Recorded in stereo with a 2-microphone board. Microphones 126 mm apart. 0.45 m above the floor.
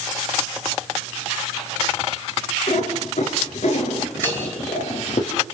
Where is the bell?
15° left (ahead or behind), 8 m.